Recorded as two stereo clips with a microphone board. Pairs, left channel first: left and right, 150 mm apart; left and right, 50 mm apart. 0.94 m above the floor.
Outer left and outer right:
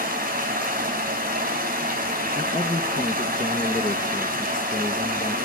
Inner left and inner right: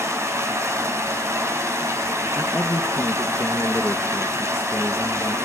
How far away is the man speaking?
About 0.8 m.